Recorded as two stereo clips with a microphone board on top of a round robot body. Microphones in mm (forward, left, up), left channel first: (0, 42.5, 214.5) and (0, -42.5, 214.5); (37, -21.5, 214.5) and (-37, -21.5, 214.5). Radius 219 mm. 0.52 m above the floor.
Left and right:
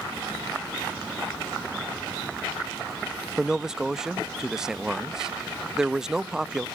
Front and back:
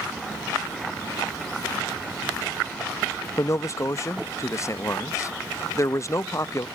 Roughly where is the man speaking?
Ahead.